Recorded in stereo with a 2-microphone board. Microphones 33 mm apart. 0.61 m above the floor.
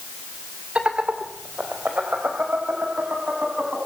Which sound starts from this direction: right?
Laughter, at 0.8 s.